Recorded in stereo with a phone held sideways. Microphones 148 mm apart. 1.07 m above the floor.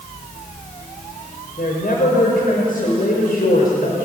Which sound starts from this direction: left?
A woman speaking, at 1.6 s.